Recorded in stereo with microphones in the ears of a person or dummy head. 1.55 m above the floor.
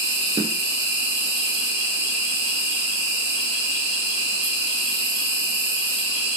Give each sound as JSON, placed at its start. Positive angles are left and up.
{"t": 0.0, "sound": "an insect", "side_deg": -60, "distance_m": 7.5}